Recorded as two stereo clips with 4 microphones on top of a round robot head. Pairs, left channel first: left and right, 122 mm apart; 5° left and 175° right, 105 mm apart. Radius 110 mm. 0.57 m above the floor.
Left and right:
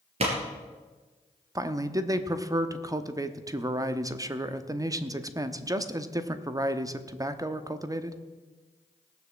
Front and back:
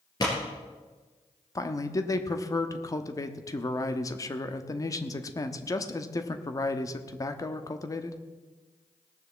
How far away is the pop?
About 3.5 m.